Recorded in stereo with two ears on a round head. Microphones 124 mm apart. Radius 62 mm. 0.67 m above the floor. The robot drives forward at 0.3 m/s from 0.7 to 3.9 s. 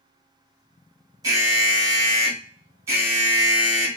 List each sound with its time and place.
1.2 s an alarm: 25° right (ahead or behind), 1.5 m; by 4.0 s 20° right (ahead or behind), 2.0 m